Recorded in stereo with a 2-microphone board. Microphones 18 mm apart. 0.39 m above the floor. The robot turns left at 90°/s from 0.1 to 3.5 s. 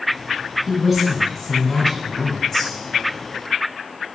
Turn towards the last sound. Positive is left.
turn(degrees=-55)